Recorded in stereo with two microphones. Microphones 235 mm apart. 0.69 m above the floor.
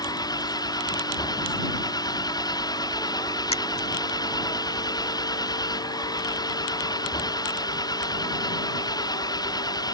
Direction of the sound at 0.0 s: 15° left (ahead or behind).